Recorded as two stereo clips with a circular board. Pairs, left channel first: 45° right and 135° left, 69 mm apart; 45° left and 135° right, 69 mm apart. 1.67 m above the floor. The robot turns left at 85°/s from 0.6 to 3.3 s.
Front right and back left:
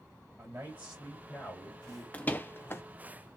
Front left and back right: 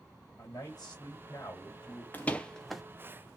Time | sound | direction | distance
0.4 | a man speaking | 80° left | 3 m
2.1 | a door slam | 5° left | 0.7 m